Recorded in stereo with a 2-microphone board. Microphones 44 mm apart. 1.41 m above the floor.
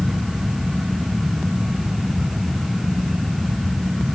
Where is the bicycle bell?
No bicycle bell in this recording.